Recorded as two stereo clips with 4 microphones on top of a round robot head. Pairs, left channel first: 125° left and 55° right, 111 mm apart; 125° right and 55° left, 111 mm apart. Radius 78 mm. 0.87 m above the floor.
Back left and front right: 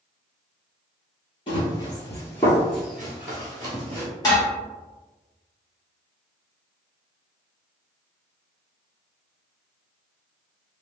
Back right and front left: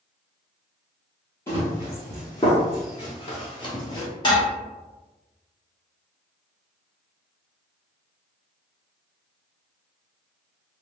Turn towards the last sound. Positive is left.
turn(degrees=180)